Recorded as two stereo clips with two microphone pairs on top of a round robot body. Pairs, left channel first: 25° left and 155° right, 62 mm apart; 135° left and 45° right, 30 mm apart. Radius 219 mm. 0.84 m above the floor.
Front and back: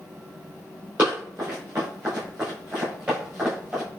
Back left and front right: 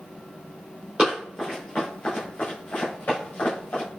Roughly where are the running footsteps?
Right.